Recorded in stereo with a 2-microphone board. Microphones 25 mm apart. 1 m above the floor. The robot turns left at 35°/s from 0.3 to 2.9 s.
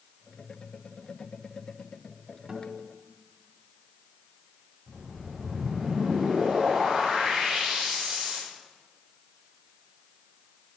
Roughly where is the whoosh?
Right.